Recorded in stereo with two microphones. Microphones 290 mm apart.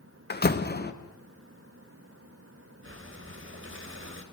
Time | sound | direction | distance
0.3 | a door slam | 35° left (ahead or behind) | 1.1 m
2.8 | breathing | 45° right (ahead or behind) | 2.5 m